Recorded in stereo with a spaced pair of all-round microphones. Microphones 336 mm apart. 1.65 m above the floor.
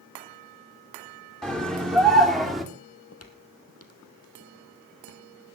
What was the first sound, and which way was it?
A scream, centre (ahead or behind).